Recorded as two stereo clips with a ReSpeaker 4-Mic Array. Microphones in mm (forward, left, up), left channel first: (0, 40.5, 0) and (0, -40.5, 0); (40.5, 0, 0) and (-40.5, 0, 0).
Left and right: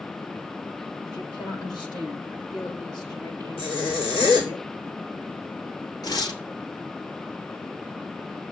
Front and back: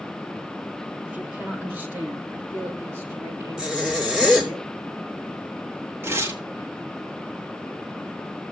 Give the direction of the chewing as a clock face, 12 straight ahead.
No chewing in this recording.